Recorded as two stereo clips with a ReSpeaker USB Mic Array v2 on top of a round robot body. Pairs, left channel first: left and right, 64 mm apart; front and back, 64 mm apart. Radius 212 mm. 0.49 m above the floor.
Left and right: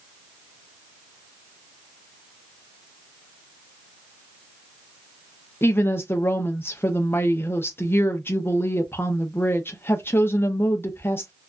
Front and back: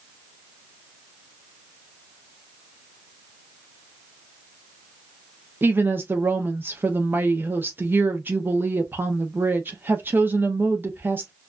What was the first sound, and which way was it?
A woman speaking, 135° left.